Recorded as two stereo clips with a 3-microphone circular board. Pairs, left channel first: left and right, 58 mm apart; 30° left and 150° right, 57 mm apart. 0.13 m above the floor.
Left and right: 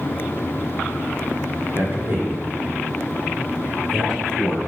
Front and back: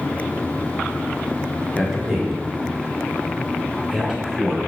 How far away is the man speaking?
About 1.9 m.